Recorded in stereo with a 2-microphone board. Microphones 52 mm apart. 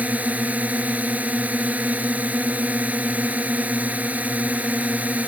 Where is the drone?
30° right (ahead or behind).